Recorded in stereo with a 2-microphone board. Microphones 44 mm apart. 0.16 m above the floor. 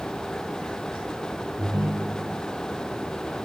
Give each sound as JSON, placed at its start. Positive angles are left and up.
{"t": 1.6, "sound": "a ringtone", "side_deg": -65, "distance_m": 1.9}